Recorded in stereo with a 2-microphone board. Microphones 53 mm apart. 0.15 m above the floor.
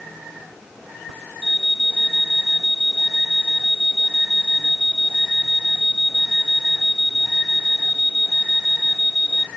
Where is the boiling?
I don't hear boiling.